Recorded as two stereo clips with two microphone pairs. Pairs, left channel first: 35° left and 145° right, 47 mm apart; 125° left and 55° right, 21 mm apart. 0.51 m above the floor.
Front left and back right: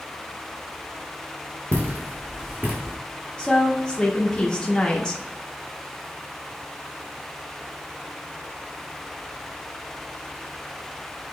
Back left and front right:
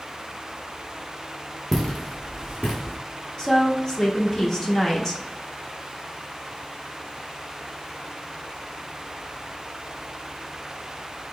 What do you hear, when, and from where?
1.7 s footsteps: 160° right, 1.4 m; by 3.0 s 160° left, 1.8 m
3.4 s a woman speaking: 85° left, 0.7 m